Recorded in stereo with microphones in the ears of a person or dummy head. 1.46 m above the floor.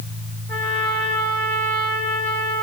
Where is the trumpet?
5° left (ahead or behind), 1.5 m.